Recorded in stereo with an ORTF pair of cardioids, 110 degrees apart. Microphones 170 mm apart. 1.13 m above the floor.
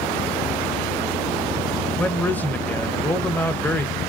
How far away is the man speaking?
About 0.7 m.